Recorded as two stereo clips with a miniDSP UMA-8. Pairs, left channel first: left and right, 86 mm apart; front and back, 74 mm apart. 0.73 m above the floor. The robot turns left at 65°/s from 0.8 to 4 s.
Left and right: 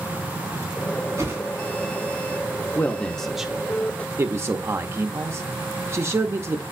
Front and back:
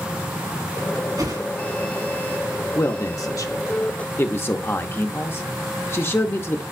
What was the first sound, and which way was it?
A whoosh, 145° right.